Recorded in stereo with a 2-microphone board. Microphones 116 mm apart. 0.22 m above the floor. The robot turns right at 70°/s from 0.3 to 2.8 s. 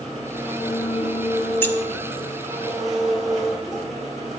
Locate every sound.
0.0 s an engine running: 5° left, 3.5 m; by 4.4 s straight behind, 3.5 m
1.6 s keys jangling: 20° left (ahead or behind), 0.8 m; by 1.8 s 25° left (ahead or behind), 0.8 m